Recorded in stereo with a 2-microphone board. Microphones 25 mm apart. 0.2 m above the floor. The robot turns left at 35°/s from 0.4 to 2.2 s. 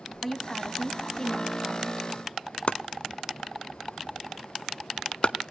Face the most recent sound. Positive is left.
turn(degrees=60)  # may be behind; listen again after turning